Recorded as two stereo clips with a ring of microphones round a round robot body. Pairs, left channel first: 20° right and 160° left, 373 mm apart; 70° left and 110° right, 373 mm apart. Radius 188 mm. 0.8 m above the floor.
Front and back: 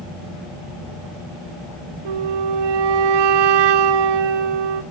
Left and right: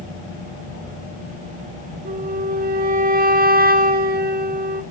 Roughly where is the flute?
Behind.